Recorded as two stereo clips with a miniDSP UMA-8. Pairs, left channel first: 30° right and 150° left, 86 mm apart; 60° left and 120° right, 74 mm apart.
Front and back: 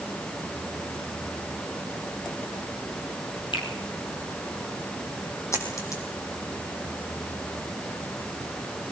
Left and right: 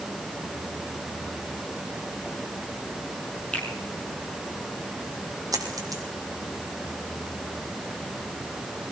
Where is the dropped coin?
85° right, 3 m.